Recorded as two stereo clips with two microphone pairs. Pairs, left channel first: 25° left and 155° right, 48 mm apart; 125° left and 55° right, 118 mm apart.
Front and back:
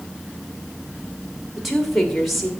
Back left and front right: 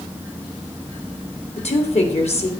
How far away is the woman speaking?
About 1.9 m.